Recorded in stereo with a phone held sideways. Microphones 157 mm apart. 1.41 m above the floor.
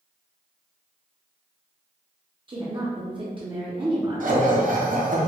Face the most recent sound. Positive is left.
turn(degrees=-60)  # may be behind; listen again after turning